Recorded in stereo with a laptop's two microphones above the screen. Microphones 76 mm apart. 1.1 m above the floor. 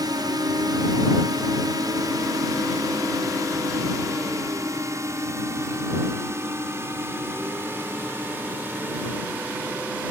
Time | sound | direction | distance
0.0 | a drone | 65° right (ahead or behind) | ?